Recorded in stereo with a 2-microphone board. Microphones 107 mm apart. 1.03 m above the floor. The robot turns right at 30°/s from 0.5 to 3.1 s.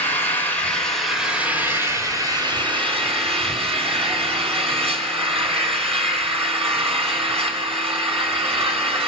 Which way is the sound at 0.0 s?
165° left.